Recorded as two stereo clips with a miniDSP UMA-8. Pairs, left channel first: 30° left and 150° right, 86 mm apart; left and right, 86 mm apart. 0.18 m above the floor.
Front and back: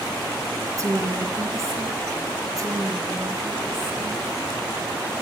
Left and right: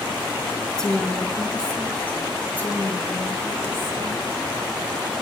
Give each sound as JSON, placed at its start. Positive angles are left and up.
{"t": 0.8, "sound": "a woman speaking", "azimuth_deg": 170, "distance_m": 2.0}